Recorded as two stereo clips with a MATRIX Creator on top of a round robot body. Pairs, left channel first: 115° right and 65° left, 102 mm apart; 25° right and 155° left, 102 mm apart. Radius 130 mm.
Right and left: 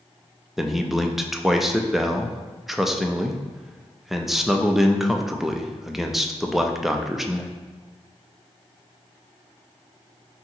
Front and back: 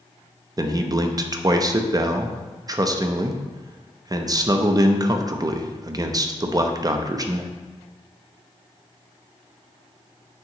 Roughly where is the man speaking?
Behind left.